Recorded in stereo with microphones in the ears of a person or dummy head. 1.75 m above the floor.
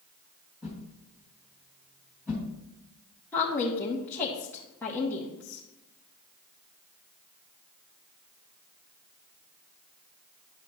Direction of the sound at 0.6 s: 10° right (ahead or behind).